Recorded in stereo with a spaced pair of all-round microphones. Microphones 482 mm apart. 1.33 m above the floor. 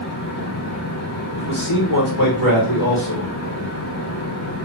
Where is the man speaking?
75° left (ahead or behind), 1.5 m.